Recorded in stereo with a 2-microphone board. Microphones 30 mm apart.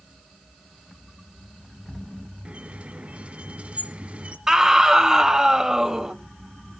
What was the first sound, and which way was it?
A squeak, 45° right (ahead or behind).